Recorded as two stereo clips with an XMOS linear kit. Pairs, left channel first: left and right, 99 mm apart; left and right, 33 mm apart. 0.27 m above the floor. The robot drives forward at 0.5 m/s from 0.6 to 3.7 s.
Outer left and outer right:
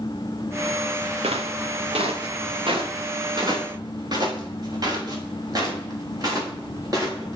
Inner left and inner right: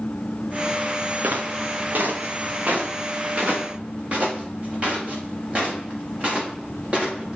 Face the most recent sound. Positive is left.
turn(degrees=-35)  # may be behind; listen again after turning